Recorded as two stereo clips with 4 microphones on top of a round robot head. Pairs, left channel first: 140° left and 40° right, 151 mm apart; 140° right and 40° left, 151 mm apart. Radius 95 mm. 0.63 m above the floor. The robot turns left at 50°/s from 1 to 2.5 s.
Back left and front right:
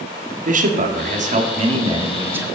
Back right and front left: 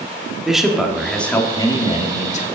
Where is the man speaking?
45° right, 1.5 m; by 2.5 s 120° right, 1.5 m.